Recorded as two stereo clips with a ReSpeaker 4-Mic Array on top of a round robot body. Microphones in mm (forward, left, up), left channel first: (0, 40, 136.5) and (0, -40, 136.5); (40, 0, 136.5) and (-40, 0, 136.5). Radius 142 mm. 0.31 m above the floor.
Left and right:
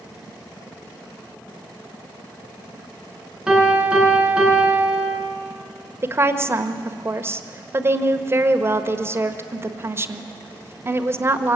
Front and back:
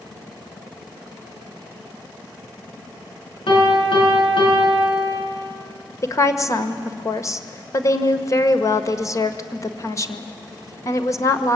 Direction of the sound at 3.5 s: 10° right.